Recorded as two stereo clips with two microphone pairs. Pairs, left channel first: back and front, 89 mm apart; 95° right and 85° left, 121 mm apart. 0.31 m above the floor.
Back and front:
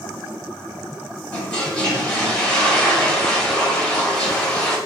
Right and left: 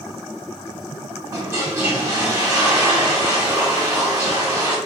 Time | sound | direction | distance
1.3 | a toilet flushing | 115° left | 1.2 m